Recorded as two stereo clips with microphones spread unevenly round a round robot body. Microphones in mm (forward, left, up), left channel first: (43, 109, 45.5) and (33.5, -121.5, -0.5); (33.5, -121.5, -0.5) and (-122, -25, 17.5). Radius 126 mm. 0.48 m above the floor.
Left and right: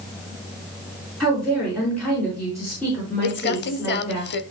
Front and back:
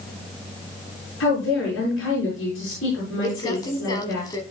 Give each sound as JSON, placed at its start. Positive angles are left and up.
{"t": 1.2, "sound": "a woman speaking", "azimuth_deg": 0, "distance_m": 6.0}
{"t": 3.2, "sound": "crumpling", "azimuth_deg": 45, "distance_m": 0.8}